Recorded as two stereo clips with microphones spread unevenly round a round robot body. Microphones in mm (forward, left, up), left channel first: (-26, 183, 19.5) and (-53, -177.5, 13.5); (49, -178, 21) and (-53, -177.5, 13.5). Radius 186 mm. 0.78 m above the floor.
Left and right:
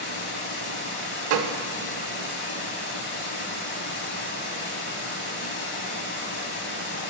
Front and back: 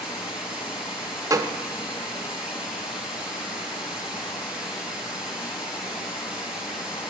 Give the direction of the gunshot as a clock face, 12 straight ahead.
4 o'clock.